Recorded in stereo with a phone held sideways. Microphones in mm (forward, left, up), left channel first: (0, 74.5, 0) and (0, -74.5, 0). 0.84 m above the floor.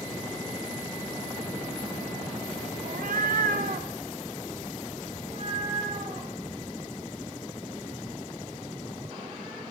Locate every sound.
2.9 s a cat meowing: 65° right (ahead or behind), 0.7 m; by 9.6 s 35° right (ahead or behind), 5.5 m